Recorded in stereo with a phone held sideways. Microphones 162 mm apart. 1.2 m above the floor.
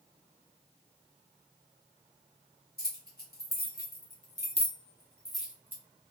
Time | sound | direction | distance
2.8 | keys jangling | 80° left | 1.2 m